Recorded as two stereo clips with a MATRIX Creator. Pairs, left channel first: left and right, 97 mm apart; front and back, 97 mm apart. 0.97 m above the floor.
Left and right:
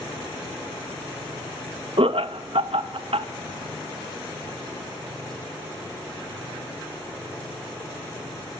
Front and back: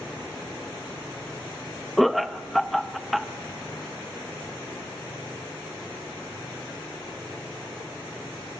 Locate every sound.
2.0 s laughter: 90° right, 0.8 m